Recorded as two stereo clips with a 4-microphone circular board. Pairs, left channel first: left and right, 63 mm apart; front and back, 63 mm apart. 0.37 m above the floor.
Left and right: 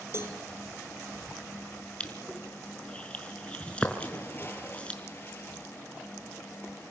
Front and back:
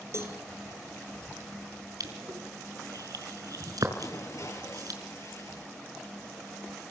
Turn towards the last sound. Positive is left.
turn(degrees=35)